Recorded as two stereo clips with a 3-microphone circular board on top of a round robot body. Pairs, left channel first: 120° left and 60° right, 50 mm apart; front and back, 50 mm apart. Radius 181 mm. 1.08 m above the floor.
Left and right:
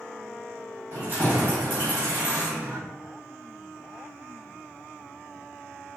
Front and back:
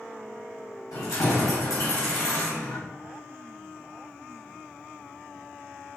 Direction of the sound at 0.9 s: Straight ahead.